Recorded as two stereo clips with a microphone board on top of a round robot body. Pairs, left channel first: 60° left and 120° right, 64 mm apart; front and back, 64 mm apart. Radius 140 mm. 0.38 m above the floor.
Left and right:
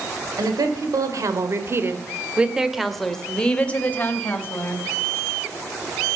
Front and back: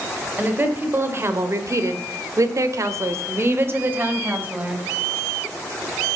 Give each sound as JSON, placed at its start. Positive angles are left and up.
{"t": 0.4, "sound": "a woman speaking", "azimuth_deg": -120, "distance_m": 3.0}